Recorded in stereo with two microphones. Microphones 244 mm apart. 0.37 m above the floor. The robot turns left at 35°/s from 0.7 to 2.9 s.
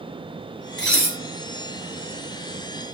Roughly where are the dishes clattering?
Right.